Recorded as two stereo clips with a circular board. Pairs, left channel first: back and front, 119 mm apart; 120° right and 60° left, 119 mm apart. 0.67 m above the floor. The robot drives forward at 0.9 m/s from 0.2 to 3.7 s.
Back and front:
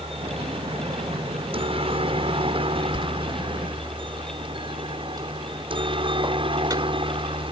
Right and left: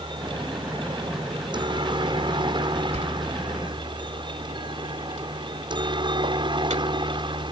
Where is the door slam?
40° left; by 7.5 s 55° left.